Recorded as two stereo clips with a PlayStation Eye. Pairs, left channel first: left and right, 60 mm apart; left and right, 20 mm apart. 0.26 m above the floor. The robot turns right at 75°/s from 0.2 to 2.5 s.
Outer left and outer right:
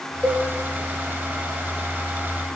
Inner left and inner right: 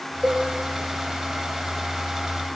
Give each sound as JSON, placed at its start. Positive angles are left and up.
{"t": 0.2, "sound": "a cowbell", "side_deg": -5, "distance_m": 2.5}